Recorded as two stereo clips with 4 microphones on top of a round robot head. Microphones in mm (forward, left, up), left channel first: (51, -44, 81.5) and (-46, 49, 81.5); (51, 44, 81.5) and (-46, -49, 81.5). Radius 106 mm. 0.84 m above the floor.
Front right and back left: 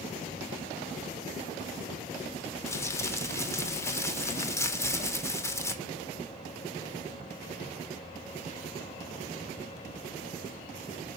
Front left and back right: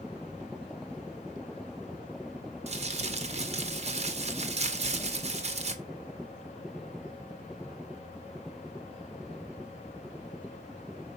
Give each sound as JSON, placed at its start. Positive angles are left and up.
{"t": 2.7, "sound": "crumpling", "azimuth_deg": -110, "distance_m": 1.8}